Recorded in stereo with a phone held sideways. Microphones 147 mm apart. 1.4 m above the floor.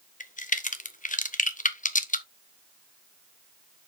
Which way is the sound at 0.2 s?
60° left (ahead or behind).